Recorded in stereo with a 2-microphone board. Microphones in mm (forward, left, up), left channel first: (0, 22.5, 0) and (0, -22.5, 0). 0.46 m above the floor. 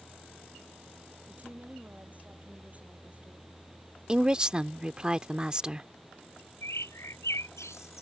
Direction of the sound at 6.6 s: 85° left.